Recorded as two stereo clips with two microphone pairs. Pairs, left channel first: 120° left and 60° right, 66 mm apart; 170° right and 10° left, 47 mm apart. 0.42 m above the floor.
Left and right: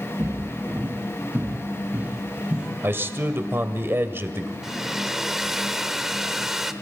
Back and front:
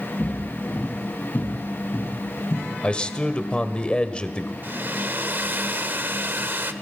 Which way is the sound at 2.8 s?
105° right.